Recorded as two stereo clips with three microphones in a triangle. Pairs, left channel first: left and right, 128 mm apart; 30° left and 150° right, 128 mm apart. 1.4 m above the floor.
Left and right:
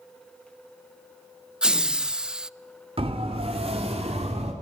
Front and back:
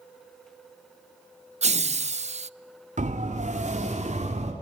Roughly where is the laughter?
Behind.